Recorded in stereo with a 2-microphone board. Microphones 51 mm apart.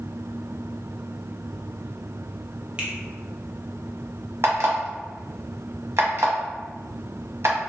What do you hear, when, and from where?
2.8 s a finger snap: 20° right (ahead or behind), 0.6 m
4.4 s an alarm clock: 55° right (ahead or behind), 0.7 m